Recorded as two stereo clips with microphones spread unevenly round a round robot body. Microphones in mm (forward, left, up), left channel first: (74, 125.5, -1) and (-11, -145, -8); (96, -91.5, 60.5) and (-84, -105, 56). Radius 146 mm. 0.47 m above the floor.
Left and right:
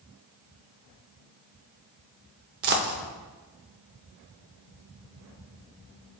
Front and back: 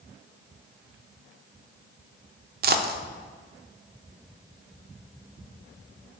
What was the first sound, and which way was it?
A dropped coin, 155° right.